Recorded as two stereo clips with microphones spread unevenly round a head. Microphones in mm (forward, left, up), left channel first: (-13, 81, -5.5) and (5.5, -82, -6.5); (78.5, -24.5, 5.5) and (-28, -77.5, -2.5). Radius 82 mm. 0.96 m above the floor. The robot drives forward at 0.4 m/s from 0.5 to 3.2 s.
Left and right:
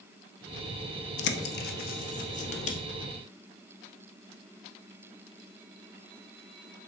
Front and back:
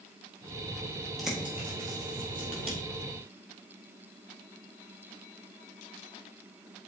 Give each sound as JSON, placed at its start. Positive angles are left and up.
{"t": 1.2, "sound": "a bird", "azimuth_deg": 115, "distance_m": 0.6}